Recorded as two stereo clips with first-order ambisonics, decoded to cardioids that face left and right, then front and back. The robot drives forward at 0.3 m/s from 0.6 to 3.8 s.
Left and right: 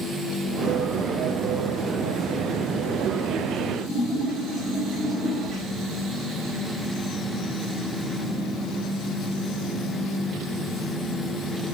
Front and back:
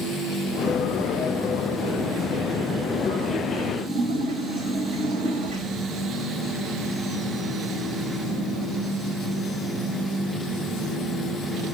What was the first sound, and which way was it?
A splash, 170° right.